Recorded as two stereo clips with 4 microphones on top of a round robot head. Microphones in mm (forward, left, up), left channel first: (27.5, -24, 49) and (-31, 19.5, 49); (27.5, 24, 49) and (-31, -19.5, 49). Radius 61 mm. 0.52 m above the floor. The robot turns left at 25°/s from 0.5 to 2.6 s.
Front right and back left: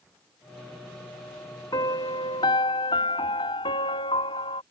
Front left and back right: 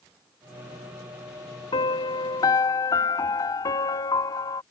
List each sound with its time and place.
1.7 s a piano: 10° left; by 4.6 s 10° right